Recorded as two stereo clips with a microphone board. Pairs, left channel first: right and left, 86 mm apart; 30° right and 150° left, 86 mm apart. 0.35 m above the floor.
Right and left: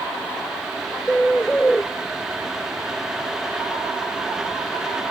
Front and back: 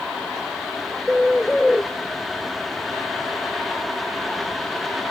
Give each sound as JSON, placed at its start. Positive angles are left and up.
{"t": 1.1, "sound": "a bird", "azimuth_deg": -110, "distance_m": 0.9}